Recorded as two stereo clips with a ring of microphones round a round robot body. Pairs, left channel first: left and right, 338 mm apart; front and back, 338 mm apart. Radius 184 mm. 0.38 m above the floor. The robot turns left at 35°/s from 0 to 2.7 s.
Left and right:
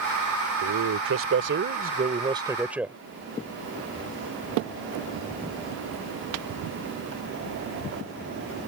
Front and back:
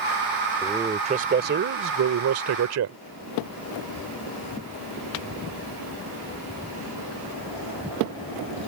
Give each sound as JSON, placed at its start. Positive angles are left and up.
{"t": 0.6, "sound": "a man speaking", "azimuth_deg": -100}